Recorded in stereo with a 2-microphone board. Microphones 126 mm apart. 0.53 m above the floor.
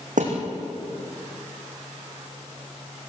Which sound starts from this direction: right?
A thud, at 0.2 s.